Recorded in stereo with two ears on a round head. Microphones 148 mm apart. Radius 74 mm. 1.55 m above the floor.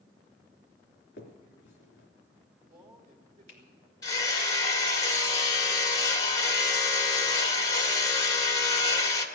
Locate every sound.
1.2 s a finger snap: 70° left (ahead or behind), 3 m
2.6 s a man speaking: 35° right (ahead or behind), 3.5 m
4.0 s hammering: 20° left (ahead or behind), 1.6 m